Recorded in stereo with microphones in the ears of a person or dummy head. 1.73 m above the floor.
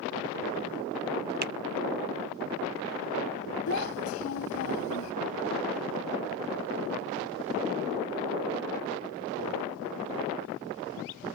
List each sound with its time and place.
1.4 s a finger snap: 50° right (ahead or behind)
3.7 s a child speaking: 85° left